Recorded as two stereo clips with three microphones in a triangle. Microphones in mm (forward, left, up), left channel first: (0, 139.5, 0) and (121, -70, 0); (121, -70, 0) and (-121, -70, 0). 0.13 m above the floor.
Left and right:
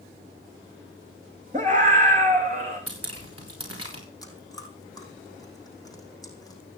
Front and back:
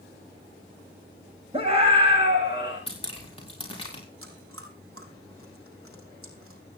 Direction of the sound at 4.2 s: 165° right.